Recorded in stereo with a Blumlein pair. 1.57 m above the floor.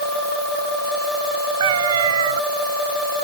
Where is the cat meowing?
60° right.